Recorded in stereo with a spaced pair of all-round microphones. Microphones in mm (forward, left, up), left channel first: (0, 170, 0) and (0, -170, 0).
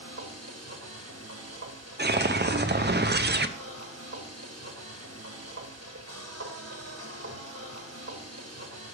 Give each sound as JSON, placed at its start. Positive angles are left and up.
{"t": 0.0, "sound": "a machine running", "side_deg": -50, "distance_m": 1.3}
{"t": 2.0, "sound": "a whoosh", "side_deg": -30, "distance_m": 0.6}